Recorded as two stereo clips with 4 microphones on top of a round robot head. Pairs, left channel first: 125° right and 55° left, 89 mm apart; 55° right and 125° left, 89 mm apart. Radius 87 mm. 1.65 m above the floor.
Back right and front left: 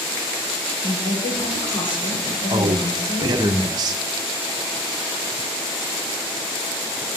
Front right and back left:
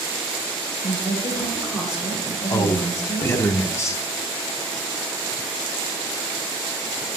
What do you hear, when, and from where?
0.8 s a woman speaking: 150° right, 8.5 m
2.5 s a man speaking: 10° left, 1.3 m